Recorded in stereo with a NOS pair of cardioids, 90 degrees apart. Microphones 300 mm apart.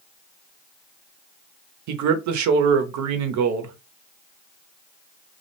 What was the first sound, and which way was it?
A man speaking, 70° right.